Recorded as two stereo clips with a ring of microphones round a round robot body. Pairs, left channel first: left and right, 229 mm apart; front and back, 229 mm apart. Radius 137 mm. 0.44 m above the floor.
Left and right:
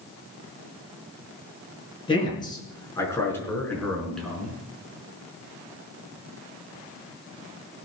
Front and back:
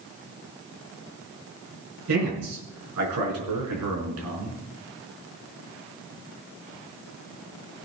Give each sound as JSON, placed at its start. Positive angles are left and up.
{"t": 2.1, "sound": "a man speaking", "azimuth_deg": 160, "distance_m": 5.5}